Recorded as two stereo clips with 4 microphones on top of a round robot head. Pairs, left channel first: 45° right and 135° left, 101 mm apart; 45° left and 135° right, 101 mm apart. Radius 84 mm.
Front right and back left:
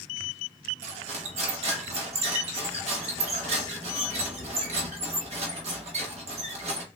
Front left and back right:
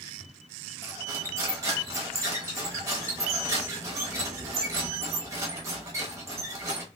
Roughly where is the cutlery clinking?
Behind.